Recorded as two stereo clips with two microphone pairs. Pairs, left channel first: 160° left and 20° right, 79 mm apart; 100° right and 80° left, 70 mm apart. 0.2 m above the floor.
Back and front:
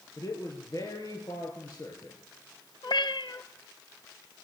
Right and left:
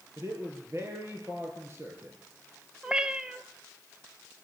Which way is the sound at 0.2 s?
125° left.